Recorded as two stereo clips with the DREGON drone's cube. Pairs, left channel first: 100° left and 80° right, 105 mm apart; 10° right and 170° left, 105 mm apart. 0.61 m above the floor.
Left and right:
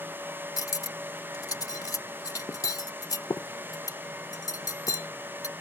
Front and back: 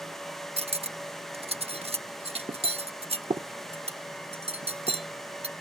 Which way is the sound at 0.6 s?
155° left.